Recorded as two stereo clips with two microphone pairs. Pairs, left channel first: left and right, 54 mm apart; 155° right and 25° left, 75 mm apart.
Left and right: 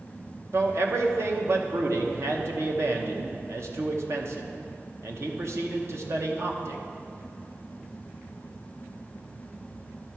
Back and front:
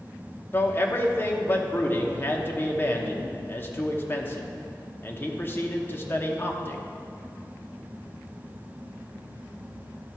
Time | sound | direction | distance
0.5 | a man speaking | 100° right | 1.0 m